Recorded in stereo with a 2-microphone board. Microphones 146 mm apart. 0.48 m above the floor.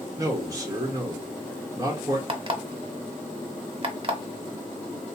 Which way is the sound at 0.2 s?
25° right (ahead or behind).